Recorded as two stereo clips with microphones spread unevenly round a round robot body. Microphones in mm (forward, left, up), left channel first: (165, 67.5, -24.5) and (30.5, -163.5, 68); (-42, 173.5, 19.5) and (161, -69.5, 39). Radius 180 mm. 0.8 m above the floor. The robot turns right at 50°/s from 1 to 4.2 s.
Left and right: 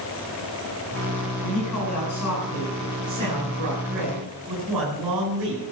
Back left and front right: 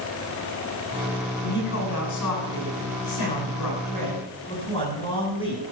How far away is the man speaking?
About 9 m.